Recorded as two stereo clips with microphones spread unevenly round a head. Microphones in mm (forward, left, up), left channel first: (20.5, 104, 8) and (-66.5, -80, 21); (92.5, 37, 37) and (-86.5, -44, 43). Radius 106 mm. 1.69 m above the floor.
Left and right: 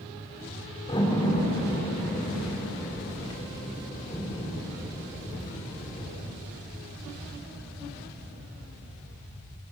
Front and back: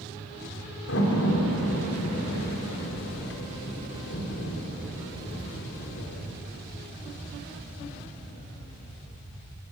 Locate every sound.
0.9 s a door slam: 5° right, 4 m